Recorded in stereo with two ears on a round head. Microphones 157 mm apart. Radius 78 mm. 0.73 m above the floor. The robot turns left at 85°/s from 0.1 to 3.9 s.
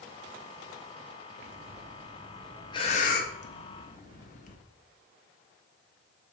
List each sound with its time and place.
1.4 s breathing: 65° right (ahead or behind), 1.1 m; by 4.6 s 45° left (ahead or behind), 1.1 m